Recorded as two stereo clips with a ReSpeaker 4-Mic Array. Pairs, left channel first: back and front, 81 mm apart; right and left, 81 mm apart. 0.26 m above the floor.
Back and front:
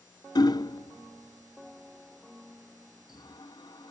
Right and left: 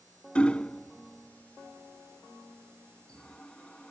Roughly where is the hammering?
Behind.